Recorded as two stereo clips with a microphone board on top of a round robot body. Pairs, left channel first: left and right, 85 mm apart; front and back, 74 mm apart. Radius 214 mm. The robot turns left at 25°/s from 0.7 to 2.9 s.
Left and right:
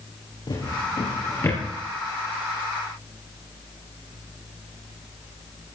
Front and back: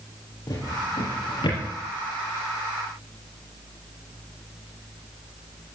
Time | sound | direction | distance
0.5 | a drawer | 45° left | 5.5 m